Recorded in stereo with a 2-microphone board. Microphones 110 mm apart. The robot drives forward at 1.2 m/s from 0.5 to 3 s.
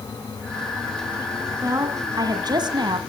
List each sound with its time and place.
1.6 s a woman speaking: 30° right (ahead or behind), 2.5 m; by 3.0 s 45° right (ahead or behind), 1.5 m